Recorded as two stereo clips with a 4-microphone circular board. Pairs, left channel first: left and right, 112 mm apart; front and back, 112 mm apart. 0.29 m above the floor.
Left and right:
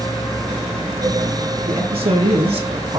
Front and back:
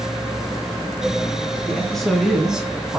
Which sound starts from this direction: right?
A man speaking, at 1.7 s.